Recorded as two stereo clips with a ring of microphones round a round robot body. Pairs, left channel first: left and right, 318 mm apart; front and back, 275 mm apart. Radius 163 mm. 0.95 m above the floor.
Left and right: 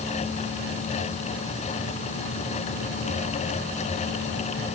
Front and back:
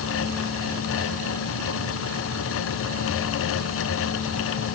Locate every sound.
Only background noise.